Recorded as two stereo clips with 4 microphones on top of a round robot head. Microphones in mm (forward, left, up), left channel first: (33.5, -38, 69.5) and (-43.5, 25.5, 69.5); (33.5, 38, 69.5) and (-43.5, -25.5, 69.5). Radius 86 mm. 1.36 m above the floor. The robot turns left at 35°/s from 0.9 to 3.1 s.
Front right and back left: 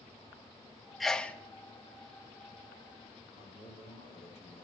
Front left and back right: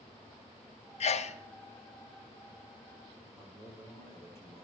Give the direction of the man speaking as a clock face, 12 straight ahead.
1 o'clock.